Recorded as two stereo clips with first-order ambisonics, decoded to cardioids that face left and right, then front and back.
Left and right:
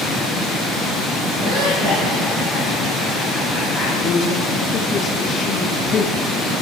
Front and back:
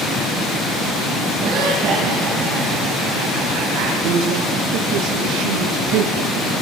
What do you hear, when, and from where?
1.4 s laughter: 145° right, 8.5 m; by 3.9 s 160° right, 7.5 m
4.0 s a man speaking: 170° left, 8.5 m